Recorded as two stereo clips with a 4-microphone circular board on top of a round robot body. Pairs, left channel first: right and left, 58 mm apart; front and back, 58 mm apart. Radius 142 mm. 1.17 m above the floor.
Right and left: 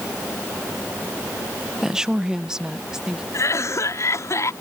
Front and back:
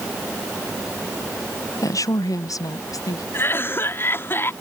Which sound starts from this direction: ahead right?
A cough, at 3.3 s.